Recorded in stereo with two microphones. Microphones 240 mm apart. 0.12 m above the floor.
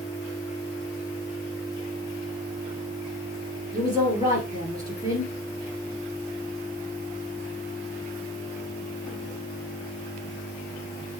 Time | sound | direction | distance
3.7 | a woman speaking | 15° right (ahead or behind) | 2.5 m